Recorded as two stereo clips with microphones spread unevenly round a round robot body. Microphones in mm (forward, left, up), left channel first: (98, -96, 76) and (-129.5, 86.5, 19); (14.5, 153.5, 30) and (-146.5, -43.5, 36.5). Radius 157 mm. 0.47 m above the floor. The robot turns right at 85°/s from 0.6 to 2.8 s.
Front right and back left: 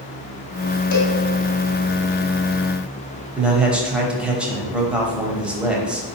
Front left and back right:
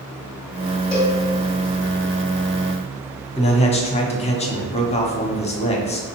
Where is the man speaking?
80° left, 0.9 m.